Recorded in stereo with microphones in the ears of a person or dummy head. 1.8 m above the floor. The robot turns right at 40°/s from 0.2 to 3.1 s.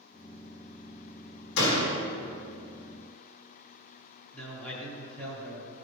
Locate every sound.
1.6 s a door slam: 75° left (ahead or behind), 3.5 m
4.3 s a man speaking: 5° left (ahead or behind), 3.5 m